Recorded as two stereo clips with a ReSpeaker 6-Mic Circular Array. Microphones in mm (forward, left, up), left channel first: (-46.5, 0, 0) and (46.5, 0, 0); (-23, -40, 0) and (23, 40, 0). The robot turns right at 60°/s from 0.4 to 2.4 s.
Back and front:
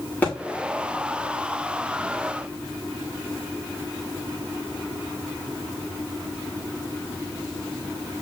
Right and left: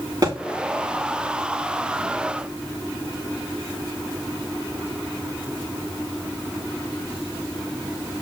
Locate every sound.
0.2 s a thud: 105° left, 7 m